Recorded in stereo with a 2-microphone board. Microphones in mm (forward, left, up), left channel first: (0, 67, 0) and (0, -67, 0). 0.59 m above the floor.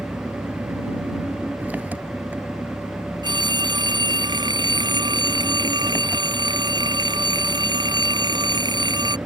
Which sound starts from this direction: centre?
An engine running, at 0.0 s.